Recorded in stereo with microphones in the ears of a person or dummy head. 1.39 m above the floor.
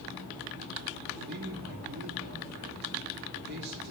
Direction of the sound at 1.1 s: 55° right (ahead or behind).